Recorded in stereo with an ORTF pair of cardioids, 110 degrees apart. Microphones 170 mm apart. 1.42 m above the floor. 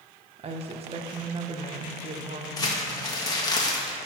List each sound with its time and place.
0.4 s a woman speaking: 35° right, 1.1 m
2.6 s crumpling: 20° left, 1.4 m